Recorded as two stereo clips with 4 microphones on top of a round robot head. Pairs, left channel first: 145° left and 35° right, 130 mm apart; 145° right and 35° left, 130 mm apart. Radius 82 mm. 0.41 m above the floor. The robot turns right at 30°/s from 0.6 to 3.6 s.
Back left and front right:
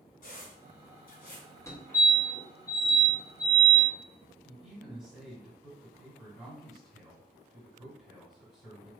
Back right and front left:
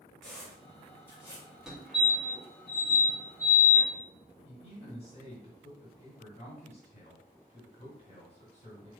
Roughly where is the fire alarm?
Left.